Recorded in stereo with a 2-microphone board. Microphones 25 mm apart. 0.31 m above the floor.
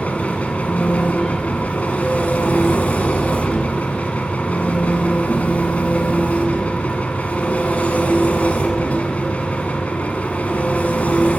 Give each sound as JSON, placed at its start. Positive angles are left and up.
{"t": 0.0, "sound": "an engine running", "side_deg": 80, "distance_m": 0.7}